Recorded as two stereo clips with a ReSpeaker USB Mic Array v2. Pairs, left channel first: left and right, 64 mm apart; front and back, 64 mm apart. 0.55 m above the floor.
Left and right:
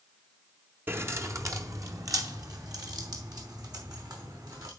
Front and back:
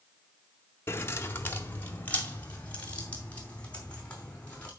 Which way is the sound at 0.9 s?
40° right.